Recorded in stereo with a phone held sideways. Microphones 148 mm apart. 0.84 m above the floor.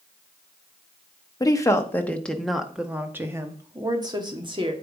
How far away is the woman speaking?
About 1.5 m.